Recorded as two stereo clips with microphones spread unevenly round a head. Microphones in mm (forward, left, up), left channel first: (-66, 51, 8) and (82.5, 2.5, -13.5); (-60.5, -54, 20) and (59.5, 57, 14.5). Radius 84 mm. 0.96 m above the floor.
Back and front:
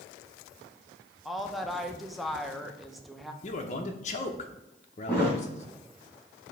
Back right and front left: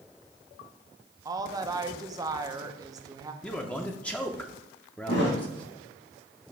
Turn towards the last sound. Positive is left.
turn(degrees=-120)